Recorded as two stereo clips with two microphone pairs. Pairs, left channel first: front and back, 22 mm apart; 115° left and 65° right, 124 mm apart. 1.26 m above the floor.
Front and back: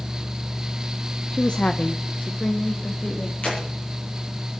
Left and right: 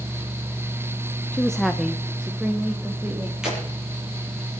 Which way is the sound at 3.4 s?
15° left.